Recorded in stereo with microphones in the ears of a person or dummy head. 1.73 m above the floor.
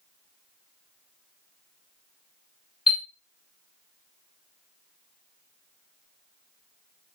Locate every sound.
2.9 s a chime: 10° right (ahead or behind), 2 m